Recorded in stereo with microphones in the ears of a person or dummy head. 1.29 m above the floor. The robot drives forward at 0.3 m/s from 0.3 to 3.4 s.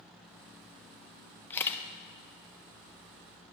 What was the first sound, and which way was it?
A camera shutter, 15° left (ahead or behind).